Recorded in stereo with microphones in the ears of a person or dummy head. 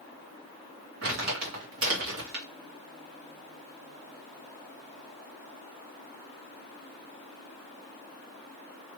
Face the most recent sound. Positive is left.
turn(degrees=-65)  # may be behind; listen again after turning